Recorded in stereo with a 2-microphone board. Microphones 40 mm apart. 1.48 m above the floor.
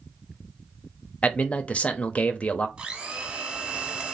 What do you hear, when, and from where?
1.2 s a man speaking: 35° left (ahead or behind), 0.6 m
2.8 s a blender: 30° right (ahead or behind), 0.9 m